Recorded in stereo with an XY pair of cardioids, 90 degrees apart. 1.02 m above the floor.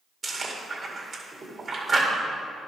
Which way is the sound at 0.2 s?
40° right.